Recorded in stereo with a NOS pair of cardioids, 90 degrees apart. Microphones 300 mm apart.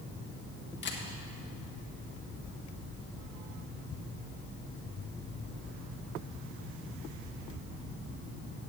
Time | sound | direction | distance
0.8 | a camera shutter | 40° left | 1.6 m